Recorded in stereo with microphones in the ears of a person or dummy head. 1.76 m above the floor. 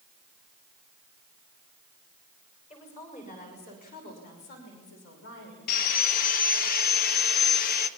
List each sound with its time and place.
2.7 s a woman speaking: 35° left (ahead or behind), 6.5 m; by 5.6 s 75° left (ahead or behind), 6 m
5.7 s sawing: 50° left (ahead or behind), 1.4 m